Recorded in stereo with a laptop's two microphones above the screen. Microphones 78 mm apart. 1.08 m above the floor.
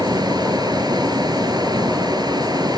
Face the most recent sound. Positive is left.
turn(degrees=-60)  # may be behind; listen again after turning